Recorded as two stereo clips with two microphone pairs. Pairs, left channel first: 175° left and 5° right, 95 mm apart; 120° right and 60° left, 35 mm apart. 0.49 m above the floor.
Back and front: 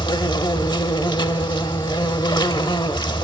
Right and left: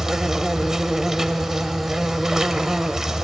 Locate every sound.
0.0 s an insect: 135° left, 0.9 m